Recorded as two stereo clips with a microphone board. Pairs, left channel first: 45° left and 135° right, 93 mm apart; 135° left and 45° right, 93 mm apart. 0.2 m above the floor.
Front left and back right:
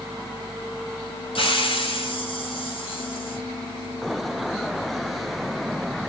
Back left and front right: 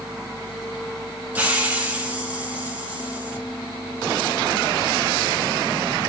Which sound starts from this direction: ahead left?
A hiss, at 1.4 s.